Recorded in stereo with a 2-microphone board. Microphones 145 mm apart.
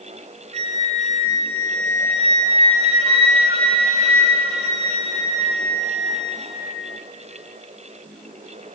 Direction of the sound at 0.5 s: 45° right (ahead or behind).